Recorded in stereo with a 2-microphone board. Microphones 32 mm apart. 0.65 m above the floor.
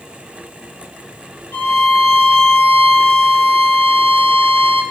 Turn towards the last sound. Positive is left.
turn(degrees=85)